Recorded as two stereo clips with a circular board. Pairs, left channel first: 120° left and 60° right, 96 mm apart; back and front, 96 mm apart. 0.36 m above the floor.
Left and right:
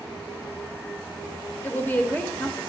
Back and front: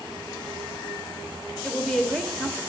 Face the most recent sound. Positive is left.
turn(degrees=105)